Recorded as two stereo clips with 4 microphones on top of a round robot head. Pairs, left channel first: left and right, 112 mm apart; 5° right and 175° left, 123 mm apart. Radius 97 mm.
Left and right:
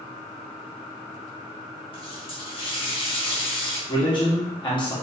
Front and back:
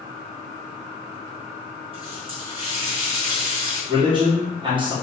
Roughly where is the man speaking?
Behind left.